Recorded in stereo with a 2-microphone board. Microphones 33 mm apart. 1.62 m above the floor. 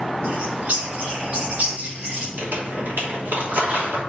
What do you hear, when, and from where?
0.2 s a bird: 50° right (ahead or behind), 2.5 m
2.4 s crumpling: 80° right, 3 m